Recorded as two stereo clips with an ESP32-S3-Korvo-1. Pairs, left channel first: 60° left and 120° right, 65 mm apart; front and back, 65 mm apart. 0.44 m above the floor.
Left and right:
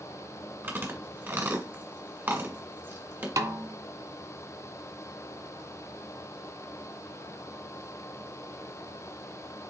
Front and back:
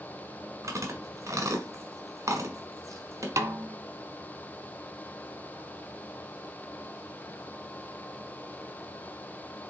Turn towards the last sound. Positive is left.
turn(degrees=-150)